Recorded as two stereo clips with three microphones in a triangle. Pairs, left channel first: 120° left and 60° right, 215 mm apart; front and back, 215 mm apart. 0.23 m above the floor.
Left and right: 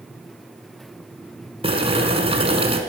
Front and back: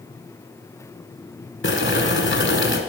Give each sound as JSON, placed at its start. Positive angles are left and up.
{"t": 1.6, "sound": "boiling", "azimuth_deg": 0, "distance_m": 1.4}